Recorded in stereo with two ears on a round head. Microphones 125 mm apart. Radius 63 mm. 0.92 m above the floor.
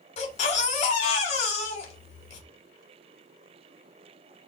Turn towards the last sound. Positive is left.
turn(degrees=50)  # may be behind; listen again after turning